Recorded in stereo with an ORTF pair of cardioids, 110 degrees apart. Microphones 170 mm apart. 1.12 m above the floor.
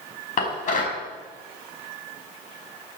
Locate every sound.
0.4 s dishes clattering: 50° left, 5 m